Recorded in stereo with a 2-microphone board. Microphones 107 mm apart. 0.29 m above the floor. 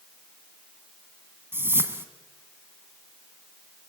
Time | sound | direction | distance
1.5 | a whoosh | 20° right (ahead or behind) | 1.5 m